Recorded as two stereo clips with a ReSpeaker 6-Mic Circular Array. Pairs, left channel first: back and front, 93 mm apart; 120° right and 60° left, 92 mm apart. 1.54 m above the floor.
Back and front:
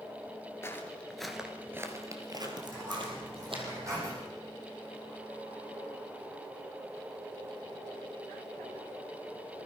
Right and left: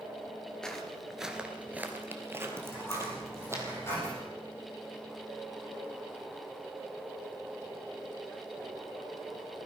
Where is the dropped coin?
55° right, 9 m.